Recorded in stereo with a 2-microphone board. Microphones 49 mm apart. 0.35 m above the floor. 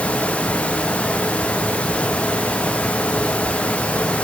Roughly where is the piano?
I don't hear a piano.